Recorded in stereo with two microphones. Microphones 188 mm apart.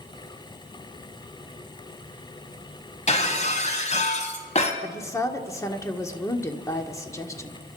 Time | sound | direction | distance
3.1 | breaking glass | 35° left (ahead or behind) | 2.0 m
4.8 | a woman speaking | 15° left (ahead or behind) | 1.5 m